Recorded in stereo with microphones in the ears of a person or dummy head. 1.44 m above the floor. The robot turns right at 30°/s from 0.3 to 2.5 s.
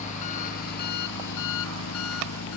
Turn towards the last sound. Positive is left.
turn(degrees=110)